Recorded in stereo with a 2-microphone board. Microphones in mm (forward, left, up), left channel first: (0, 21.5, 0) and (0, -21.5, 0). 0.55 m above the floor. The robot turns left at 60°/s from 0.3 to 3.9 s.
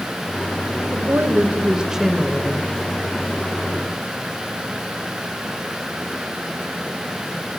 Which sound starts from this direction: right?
A woman speaking, at 0.9 s.